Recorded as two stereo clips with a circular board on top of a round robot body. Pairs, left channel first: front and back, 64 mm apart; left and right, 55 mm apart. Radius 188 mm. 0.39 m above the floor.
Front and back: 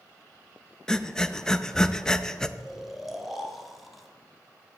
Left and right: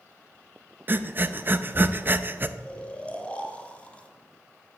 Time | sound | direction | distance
0.9 | breathing | 75° right | 0.6 m
2.6 | snoring | 95° left | 1.3 m